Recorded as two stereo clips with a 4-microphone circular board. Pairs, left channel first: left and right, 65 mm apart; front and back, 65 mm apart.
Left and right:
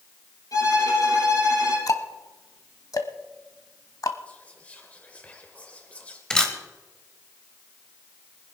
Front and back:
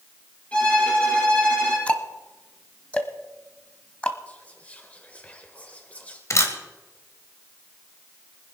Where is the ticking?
70° left, 1.0 m.